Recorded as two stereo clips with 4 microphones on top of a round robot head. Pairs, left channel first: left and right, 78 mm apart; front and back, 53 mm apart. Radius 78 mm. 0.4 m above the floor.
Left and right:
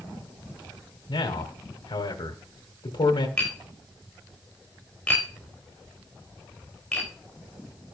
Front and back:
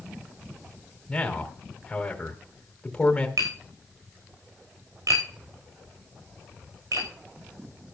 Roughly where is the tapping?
Behind.